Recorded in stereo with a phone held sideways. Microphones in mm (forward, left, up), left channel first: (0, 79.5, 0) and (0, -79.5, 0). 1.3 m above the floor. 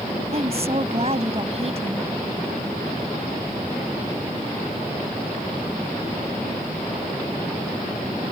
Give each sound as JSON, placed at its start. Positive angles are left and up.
{"t": 0.3, "sound": "a woman speaking", "side_deg": -40}